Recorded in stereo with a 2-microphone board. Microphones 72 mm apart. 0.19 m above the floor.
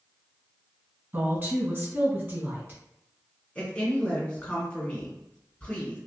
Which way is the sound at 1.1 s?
30° right (ahead or behind).